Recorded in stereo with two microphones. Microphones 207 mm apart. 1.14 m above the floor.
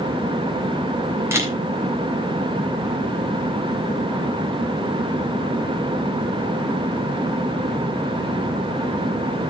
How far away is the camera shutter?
About 3 m.